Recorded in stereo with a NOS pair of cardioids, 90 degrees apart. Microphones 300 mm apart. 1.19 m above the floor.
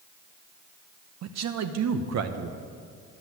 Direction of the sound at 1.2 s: 65° right.